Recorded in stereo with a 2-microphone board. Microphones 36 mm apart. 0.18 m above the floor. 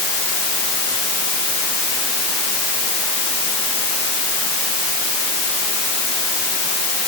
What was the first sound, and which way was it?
Only background noise.